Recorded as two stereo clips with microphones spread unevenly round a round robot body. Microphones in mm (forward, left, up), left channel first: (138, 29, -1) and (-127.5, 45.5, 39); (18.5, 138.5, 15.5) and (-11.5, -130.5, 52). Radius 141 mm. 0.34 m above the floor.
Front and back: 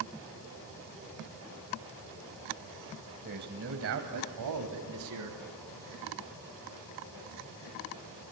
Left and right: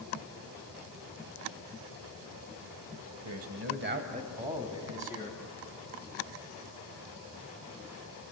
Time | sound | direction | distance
3.2 | a man speaking | 120° right | 2.5 m